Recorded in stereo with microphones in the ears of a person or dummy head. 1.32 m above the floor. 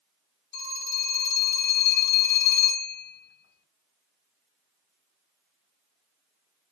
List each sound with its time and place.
0.5 s a phone ringing: 60° left (ahead or behind), 2.5 m